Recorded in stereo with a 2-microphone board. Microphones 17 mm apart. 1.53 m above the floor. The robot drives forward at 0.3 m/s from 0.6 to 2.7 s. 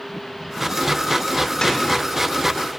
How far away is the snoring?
About 5 m.